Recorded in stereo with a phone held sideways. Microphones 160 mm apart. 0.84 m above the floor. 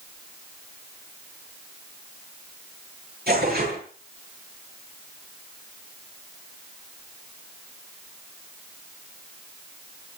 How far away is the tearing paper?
About 9 m.